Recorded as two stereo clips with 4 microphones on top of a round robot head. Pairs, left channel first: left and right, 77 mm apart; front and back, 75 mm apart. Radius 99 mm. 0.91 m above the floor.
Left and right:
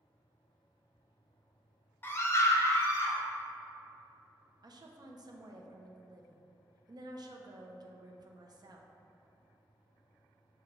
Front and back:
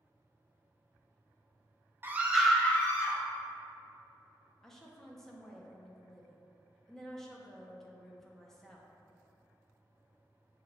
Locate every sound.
2.0 s a scream: 135° left, 0.8 m; by 3.2 s 40° left, 1.0 m
4.6 s a woman speaking: 85° right, 0.5 m